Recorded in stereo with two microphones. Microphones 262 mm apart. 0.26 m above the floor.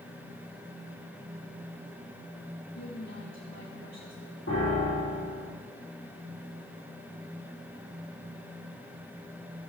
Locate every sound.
2.7 s a woman speaking: 80° left, 8.5 m
4.5 s a piano: 60° left (ahead or behind), 7.5 m